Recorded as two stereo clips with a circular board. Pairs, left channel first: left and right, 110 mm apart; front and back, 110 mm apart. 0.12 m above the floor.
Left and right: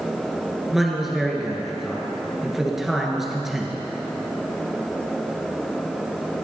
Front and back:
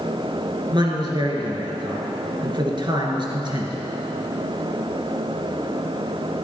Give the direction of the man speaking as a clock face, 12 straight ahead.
6 o'clock.